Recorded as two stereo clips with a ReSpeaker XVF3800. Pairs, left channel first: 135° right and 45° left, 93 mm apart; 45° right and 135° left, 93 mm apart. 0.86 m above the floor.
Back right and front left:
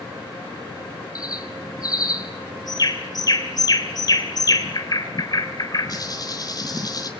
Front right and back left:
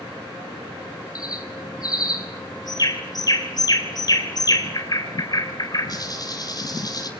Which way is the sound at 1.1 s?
90° right.